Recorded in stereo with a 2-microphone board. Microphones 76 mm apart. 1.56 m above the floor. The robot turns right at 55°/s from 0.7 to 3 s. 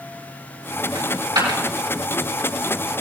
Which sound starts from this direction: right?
A dropped coin, at 0.9 s.